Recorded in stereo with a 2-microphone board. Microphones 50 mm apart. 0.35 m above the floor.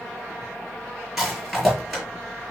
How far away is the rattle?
About 6.5 m.